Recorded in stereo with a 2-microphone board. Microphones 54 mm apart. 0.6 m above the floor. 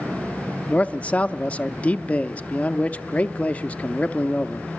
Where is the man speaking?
20° left (ahead or behind), 0.6 m.